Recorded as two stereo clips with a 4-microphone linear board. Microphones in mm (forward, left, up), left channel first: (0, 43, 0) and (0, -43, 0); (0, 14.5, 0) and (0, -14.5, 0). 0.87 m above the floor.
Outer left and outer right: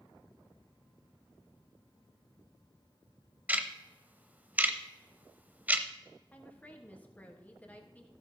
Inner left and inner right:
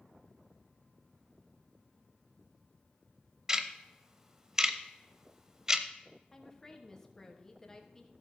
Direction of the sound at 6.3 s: 15° left (ahead or behind).